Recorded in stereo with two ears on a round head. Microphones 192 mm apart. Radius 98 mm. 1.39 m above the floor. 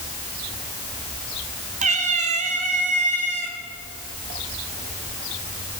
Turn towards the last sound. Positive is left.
turn(degrees=-35)  # may be behind; listen again after turning